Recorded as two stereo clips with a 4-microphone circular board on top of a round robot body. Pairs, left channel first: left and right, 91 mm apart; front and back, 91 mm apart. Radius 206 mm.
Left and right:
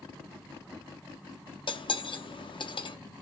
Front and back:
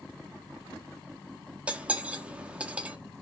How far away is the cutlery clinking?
About 0.7 m.